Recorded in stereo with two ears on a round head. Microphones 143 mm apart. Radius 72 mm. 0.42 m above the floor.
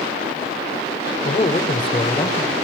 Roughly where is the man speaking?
Left.